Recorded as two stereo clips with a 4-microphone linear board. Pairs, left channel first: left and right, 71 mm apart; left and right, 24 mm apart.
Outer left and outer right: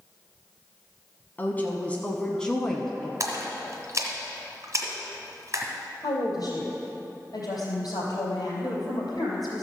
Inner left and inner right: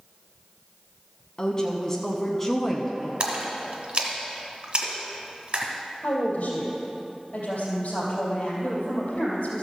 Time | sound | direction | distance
1.4 | a woman speaking | 30° left (ahead or behind) | 1.1 m
3.2 | a splash | 45° right (ahead or behind) | 2.0 m
6.0 | a woman speaking | 60° left (ahead or behind) | 3 m